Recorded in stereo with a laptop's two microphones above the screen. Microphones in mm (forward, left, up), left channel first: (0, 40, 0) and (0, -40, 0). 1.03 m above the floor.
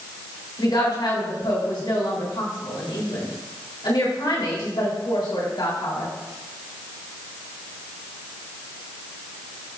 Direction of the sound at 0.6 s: 75° left (ahead or behind).